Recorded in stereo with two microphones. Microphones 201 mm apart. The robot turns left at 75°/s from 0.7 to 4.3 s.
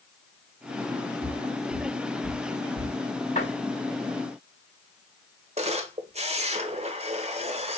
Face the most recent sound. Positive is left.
turn(degrees=-30)  # may be behind; listen again after turning